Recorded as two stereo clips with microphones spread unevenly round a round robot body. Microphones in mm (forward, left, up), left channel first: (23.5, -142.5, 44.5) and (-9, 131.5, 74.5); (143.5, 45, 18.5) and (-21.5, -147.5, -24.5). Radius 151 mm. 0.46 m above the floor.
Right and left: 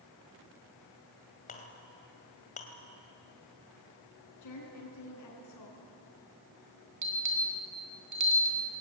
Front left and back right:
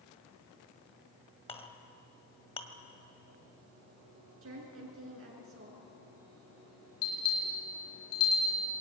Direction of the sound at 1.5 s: 20° right.